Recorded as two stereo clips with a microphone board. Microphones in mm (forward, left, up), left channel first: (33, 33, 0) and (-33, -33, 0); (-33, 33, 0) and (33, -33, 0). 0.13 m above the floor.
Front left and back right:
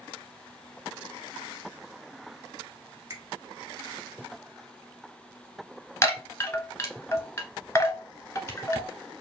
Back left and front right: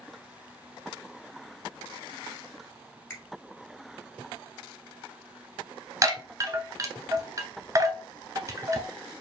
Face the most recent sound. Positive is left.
turn(degrees=-5)